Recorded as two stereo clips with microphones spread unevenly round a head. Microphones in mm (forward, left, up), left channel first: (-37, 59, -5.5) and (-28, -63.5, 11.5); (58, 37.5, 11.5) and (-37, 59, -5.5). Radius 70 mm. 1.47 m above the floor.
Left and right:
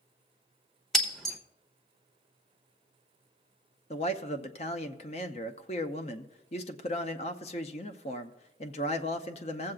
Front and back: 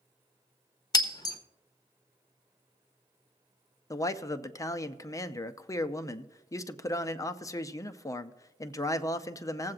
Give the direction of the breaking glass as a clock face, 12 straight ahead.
12 o'clock.